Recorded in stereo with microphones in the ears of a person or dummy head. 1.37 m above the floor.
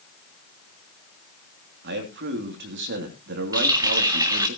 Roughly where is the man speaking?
Right.